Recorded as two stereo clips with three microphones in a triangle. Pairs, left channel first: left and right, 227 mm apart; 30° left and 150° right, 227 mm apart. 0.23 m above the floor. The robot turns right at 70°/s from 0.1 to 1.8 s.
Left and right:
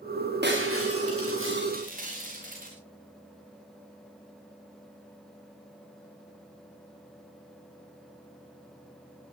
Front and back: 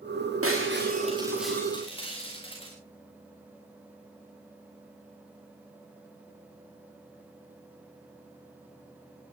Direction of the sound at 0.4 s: 135° right.